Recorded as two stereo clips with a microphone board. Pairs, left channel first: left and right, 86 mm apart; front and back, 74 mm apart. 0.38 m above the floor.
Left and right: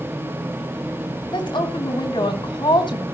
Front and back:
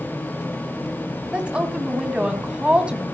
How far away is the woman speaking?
About 2.5 m.